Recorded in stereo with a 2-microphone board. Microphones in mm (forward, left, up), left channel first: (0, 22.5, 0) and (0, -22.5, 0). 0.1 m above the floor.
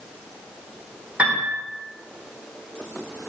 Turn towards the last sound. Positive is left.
turn(degrees=-25)  # may be behind; listen again after turning